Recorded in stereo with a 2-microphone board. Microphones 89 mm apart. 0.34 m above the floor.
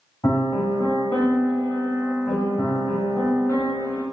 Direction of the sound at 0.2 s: 45° left (ahead or behind).